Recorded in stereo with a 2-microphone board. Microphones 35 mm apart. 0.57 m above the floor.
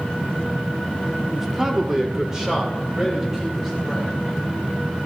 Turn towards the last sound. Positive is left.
turn(degrees=-20)  # may be behind; listen again after turning